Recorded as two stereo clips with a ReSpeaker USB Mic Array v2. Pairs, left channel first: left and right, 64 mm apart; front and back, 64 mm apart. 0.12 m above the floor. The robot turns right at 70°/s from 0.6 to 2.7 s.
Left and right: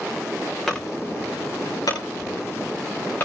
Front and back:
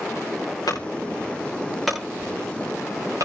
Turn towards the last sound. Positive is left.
turn(degrees=150)